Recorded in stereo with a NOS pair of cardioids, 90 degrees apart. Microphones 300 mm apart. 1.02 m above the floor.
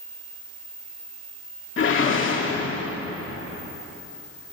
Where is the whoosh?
45° left, 2 m.